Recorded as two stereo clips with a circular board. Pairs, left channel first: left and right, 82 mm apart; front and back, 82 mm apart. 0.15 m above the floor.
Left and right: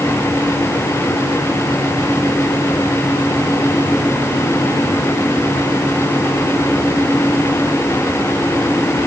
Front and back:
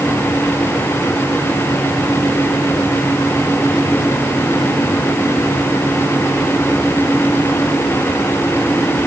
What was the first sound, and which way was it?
Only background noise.